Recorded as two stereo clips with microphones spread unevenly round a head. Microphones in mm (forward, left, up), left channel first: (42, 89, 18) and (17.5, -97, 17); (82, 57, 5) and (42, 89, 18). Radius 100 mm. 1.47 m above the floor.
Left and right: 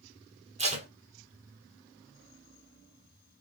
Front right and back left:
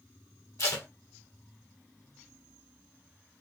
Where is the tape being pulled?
40° right, 1.2 m.